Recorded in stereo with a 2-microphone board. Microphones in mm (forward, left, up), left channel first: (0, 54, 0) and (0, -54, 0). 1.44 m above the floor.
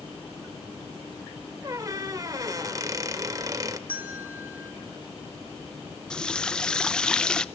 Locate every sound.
1.6 s a squeak: 35° right (ahead or behind), 1.3 m
3.9 s a bell: 20° right (ahead or behind), 4.5 m
6.1 s a running tap: 5° left (ahead or behind), 0.6 m